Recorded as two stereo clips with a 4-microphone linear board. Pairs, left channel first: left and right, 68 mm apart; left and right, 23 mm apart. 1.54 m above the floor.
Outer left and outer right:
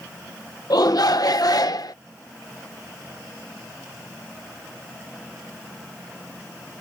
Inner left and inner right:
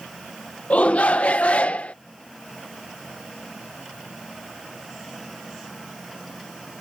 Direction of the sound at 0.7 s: 75° left (ahead or behind).